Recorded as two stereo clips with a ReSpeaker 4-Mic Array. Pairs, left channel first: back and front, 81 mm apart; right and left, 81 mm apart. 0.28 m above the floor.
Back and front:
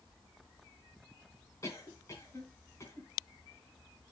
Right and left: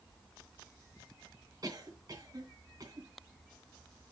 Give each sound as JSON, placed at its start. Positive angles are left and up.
{"t": 1.6, "sound": "a cough", "azimuth_deg": 130, "distance_m": 3.0}